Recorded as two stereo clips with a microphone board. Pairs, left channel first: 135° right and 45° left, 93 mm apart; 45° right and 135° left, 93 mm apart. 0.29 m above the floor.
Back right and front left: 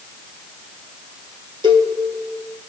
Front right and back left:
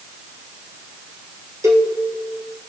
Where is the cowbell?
80° left, 1.4 m.